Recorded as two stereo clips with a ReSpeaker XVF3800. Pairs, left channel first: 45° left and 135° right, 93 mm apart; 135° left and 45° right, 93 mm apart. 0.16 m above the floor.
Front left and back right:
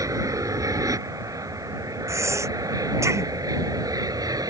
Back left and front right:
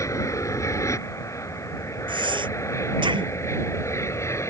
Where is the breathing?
75° right.